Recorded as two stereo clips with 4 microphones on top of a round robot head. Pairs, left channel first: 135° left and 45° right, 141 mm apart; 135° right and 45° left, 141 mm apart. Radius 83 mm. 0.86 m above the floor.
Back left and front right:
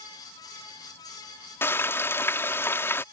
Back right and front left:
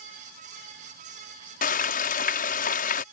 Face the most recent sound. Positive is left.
turn(degrees=-155)